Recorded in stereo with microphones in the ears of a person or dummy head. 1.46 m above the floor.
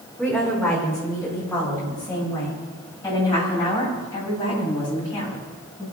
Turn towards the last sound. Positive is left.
turn(degrees=20)  # may be behind; listen again after turning